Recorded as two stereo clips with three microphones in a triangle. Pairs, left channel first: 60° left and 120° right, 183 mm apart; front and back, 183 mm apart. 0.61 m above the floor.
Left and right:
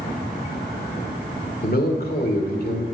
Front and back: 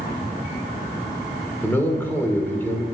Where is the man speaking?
80° left, 2.0 m.